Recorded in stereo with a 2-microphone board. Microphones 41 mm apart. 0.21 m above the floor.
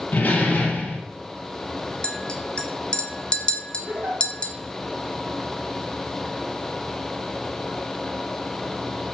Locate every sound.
0.1 s a door slam: 40° left (ahead or behind), 3 m
2.0 s a clink: 25° left (ahead or behind), 1.1 m
3.9 s a giggle: 55° right (ahead or behind), 3 m